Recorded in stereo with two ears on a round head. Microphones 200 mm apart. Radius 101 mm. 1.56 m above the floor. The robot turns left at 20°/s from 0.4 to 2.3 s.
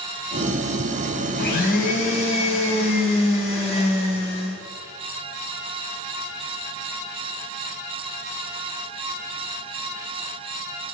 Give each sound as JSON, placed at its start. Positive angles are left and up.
{"t": 1.4, "sound": "a blender", "side_deg": 45, "distance_m": 3.5}